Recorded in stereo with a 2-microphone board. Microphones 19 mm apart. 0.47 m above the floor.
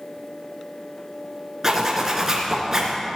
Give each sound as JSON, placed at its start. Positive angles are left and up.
{"t": 1.6, "sound": "a zipper", "side_deg": -25, "distance_m": 3.5}